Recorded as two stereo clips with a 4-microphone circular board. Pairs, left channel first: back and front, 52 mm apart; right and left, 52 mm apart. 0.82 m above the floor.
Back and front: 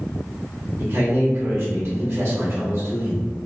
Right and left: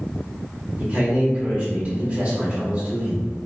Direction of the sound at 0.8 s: 35° left.